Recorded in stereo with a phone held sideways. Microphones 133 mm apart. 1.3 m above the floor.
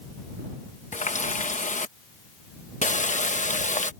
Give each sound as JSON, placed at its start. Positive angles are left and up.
{"t": 0.9, "sound": "a running tap", "side_deg": 70}